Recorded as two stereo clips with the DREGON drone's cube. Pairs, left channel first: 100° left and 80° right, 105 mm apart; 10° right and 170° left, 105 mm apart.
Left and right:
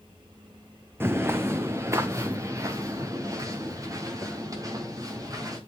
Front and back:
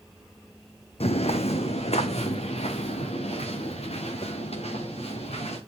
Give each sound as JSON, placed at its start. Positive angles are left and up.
{"t": 1.0, "sound": "footsteps", "azimuth_deg": -10, "distance_m": 1.0}